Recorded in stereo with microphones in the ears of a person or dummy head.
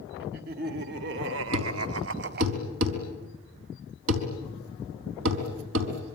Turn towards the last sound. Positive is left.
turn(degrees=-70)  # may be behind; listen again after turning